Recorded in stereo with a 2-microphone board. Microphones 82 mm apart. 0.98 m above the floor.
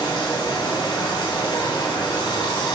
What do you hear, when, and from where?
0.0 s running water: 70° left (ahead or behind), 1.2 m